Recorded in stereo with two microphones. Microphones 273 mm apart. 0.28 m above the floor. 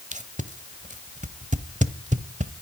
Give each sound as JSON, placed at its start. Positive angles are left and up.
{"t": 0.1, "sound": "tape being pulled", "side_deg": -25, "distance_m": 1.0}